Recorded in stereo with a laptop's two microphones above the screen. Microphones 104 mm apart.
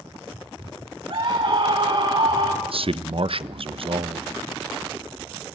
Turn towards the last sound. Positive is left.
turn(degrees=-60)  # may be behind; listen again after turning